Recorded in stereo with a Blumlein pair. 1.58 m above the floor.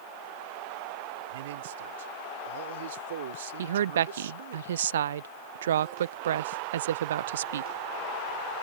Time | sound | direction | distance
1.3 | a man speaking | 60° right | ?
3.6 | a woman speaking | 65° right | ?